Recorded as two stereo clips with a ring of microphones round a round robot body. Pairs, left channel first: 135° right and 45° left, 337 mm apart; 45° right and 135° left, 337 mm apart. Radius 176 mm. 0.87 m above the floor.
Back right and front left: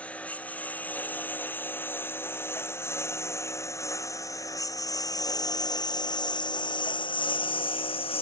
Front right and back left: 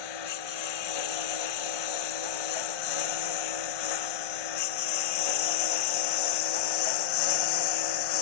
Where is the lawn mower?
50° right; by 8.2 s 60° right.